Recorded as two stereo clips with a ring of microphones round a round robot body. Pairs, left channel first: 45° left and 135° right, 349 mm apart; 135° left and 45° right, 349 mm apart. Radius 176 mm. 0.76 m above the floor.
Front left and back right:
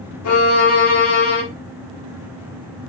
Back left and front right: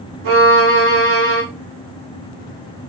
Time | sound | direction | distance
0.2 | a violin | straight ahead | 1.7 m